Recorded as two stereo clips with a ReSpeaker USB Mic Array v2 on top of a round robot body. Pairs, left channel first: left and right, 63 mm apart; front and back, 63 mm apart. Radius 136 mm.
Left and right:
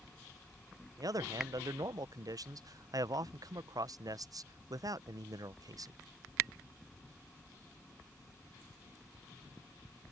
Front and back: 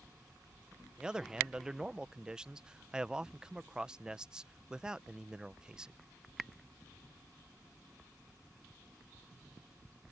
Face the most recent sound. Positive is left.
turn(degrees=-100)